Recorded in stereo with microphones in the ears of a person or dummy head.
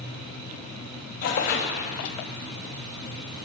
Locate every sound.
1.2 s tearing paper: 45° left (ahead or behind), 0.7 m